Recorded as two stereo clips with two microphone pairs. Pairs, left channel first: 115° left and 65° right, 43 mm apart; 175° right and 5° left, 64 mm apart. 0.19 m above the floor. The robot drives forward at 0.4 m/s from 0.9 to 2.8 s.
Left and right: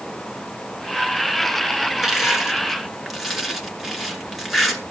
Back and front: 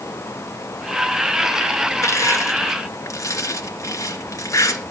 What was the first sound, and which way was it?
Crushing, 145° right.